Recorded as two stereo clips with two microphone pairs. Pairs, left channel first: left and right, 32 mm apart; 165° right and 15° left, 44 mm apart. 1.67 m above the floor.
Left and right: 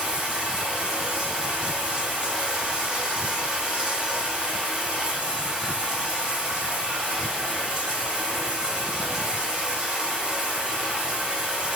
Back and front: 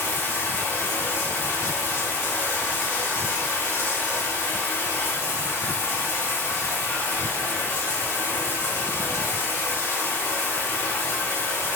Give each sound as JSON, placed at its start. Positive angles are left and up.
{"t": 0.0, "sound": "running water", "azimuth_deg": -155, "distance_m": 3.0}